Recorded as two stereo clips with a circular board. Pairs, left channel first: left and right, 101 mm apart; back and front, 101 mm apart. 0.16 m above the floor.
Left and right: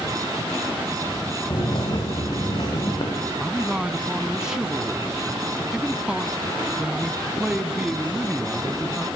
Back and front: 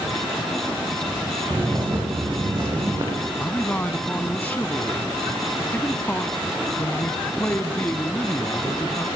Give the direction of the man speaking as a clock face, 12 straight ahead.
5 o'clock.